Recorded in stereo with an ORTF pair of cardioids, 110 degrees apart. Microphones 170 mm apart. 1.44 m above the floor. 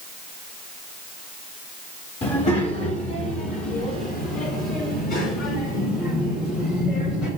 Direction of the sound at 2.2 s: 35° left.